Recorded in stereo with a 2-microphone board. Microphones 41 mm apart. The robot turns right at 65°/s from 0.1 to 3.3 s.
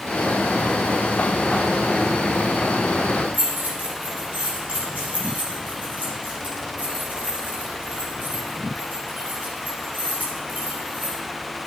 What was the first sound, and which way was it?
Keys jangling, 35° right (ahead or behind).